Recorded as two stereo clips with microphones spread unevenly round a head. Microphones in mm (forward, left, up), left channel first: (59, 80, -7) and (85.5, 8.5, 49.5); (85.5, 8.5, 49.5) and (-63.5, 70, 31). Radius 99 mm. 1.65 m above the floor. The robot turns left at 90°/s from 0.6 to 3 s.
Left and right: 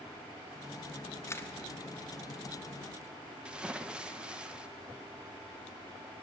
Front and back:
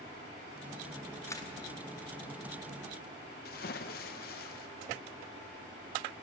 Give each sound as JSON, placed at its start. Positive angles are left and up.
{"t": 1.3, "sound": "a camera shutter", "azimuth_deg": 55, "distance_m": 1.0}
{"t": 3.5, "sound": "a splash", "azimuth_deg": -30, "distance_m": 0.5}